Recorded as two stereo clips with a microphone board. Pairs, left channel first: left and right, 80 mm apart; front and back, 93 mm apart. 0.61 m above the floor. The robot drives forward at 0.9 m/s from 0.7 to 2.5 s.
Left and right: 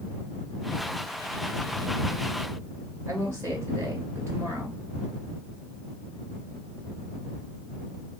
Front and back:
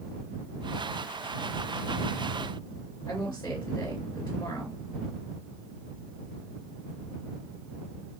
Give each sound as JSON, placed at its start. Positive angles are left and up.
{"t": 3.1, "sound": "a woman speaking", "azimuth_deg": -40, "distance_m": 2.0}